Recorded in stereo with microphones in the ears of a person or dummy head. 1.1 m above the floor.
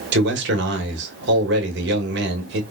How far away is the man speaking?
About 1.6 m.